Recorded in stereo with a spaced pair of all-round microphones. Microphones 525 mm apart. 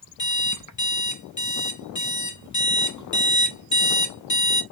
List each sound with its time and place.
0.2 s an alarm clock: 35° left (ahead or behind), 0.7 m